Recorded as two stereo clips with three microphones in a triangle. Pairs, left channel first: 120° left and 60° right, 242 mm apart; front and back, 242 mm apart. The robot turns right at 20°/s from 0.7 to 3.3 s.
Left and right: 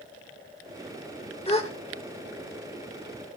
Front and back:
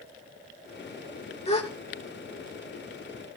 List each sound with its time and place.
1.5 s a gasp: 55° left, 1.2 m; by 1.7 s 60° left, 1.2 m